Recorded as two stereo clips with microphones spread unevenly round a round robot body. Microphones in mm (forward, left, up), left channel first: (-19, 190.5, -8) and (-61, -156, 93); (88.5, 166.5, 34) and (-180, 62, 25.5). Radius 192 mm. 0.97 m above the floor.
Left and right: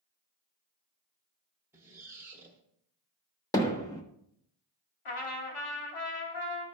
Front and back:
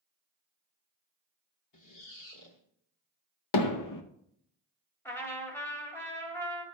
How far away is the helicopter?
No helicopter in this recording.